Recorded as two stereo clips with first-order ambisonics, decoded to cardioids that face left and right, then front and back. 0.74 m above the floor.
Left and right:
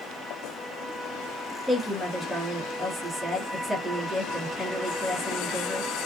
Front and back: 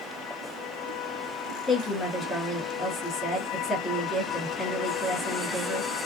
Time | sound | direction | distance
1.7 | a woman speaking | 5° right | 1.0 m